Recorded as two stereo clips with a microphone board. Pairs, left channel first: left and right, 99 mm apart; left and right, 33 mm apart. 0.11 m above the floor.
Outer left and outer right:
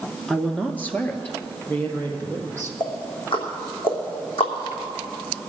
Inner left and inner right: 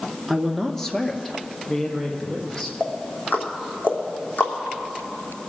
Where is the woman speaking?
10° left (ahead or behind), 1.1 m; by 2.7 s 20° left (ahead or behind), 3 m.